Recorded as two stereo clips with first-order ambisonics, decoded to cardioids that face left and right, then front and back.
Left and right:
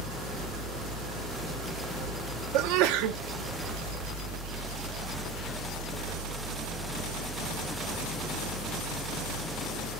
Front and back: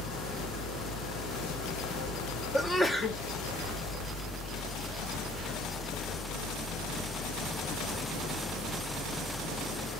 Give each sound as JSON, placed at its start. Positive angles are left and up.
{"t": 0.0, "sound": "an engine running", "azimuth_deg": -45, "distance_m": 3.5}
{"t": 2.5, "sound": "a sneeze", "azimuth_deg": -85, "distance_m": 0.6}